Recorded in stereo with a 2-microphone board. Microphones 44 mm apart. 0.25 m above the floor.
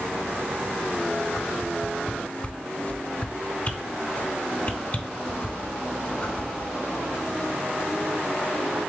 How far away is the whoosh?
About 0.7 m.